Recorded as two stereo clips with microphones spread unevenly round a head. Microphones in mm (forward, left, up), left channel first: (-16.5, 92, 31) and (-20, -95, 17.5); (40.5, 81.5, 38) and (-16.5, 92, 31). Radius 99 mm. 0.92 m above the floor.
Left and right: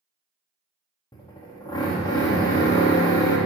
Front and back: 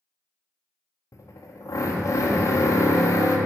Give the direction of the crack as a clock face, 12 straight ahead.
No crack in this recording.